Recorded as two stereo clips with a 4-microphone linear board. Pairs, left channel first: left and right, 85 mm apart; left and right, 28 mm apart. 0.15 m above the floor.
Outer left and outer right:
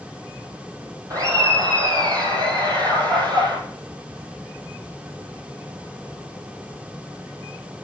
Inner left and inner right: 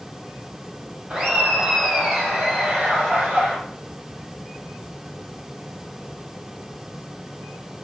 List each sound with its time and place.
1.1 s laughter: 45° right (ahead or behind), 6 m; by 3.6 s 55° right (ahead or behind), 6 m